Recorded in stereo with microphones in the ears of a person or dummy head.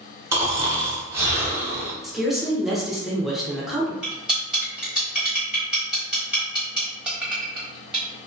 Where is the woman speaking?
Centre (ahead or behind), 0.6 m.